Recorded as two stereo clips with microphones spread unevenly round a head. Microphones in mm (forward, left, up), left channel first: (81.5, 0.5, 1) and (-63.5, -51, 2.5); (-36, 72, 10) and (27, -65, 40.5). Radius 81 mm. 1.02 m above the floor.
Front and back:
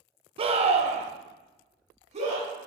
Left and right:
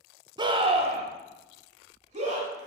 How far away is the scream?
About 0.9 m.